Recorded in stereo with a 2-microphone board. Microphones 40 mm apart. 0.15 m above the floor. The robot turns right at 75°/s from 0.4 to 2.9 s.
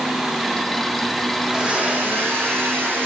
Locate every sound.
1.4 s a blender: 170° right, 9.5 m; by 3.1 s 60° right, 9.5 m